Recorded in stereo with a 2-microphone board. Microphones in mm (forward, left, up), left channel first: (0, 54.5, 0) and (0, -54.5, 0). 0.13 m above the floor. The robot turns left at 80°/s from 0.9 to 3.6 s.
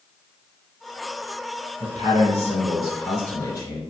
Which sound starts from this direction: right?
A man speaking, at 1.8 s.